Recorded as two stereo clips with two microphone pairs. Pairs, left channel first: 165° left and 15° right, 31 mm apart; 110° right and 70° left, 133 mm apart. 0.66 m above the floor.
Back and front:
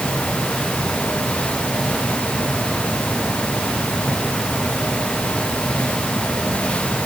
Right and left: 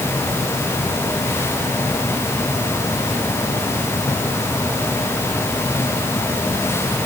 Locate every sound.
Only background noise.